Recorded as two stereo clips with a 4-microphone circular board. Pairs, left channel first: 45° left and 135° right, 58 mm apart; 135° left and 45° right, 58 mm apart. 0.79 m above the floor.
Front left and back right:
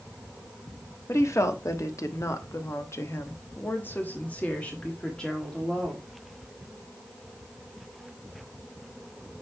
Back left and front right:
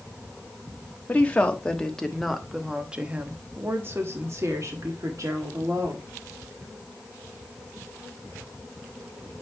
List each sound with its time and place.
1.1 s a woman speaking: 70° left, 1.4 m; by 6.1 s 35° right, 1.9 m